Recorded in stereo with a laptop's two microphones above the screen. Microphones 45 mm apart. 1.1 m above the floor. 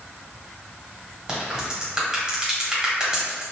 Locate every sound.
1.3 s a crack: 15° right (ahead or behind), 1.7 m